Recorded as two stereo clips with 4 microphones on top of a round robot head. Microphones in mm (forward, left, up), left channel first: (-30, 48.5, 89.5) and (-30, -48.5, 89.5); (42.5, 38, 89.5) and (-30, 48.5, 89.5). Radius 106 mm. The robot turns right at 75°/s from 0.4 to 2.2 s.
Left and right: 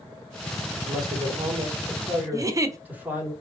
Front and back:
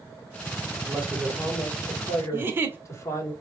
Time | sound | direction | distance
0.8 | a man speaking | 130° right | 1.8 m
2.3 | a giggle | 135° right | 0.7 m